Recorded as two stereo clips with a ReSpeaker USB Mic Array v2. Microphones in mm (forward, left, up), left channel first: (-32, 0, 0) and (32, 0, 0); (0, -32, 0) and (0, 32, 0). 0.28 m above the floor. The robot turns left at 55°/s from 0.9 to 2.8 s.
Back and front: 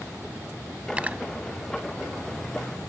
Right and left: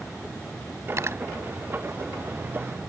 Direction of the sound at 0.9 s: 70° left.